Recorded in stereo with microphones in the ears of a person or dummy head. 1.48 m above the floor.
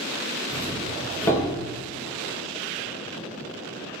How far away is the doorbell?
About 3 m.